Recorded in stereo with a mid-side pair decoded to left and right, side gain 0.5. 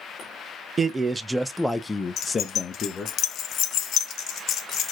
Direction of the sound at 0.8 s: 30° right.